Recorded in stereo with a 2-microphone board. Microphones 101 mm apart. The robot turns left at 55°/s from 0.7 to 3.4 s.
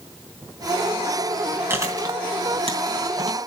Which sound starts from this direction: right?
Chewing, at 1.7 s.